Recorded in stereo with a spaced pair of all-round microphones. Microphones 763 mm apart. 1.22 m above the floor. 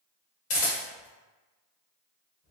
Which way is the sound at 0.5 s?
70° left (ahead or behind).